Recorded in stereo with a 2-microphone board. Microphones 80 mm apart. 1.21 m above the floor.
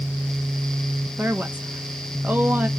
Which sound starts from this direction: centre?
A woman speaking, at 1.2 s.